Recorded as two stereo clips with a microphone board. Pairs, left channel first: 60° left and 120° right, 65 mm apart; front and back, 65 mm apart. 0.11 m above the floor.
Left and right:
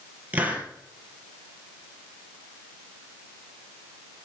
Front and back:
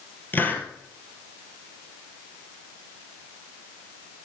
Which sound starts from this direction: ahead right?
A hiss, at 0.3 s.